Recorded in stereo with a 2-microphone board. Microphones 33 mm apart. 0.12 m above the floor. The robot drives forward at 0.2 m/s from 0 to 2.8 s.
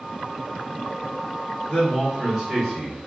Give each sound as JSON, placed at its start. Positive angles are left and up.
{"t": 1.7, "sound": "a man speaking", "side_deg": -10, "distance_m": 1.3}